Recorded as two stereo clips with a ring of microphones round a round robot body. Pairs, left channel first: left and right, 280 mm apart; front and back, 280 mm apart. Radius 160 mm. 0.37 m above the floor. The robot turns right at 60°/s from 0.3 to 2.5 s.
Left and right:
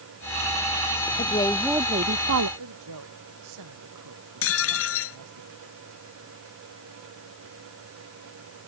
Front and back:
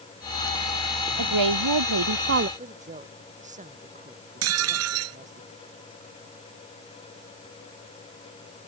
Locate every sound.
1.2 s a woman speaking: 155° left; by 2.5 s 130° right
2.6 s a woman speaking: 115° right
4.4 s dishes clattering: 135° left